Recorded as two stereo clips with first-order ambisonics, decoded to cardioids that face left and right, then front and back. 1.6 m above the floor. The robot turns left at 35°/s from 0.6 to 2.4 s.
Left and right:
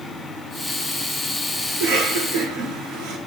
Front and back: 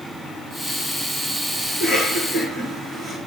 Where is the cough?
85° right, 4 m; by 3.2 s 110° right, 4 m.